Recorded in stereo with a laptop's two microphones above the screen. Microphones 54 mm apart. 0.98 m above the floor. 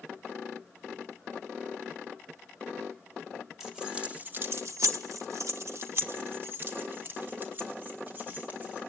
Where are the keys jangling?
10° right (ahead or behind), 1.3 m; by 8.8 s 35° right (ahead or behind), 4 m.